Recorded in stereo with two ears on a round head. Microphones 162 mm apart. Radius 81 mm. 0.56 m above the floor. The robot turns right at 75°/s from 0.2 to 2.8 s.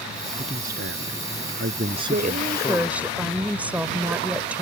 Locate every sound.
0.4 s a man speaking: 150° right; by 3.1 s 30° left
2.1 s a woman speaking: 60° right; by 4.6 s 10° right